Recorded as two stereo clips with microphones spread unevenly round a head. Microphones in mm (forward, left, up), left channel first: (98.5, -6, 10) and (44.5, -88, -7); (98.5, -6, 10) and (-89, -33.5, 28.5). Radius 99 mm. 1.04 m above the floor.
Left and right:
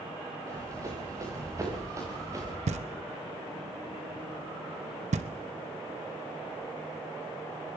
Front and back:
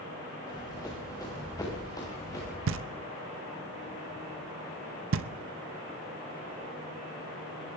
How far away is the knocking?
About 0.6 m.